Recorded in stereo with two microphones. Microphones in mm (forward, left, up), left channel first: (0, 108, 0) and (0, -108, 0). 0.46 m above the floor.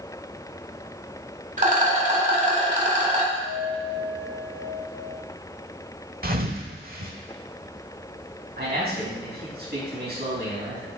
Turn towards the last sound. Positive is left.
turn(degrees=-50)  # may be behind; listen again after turning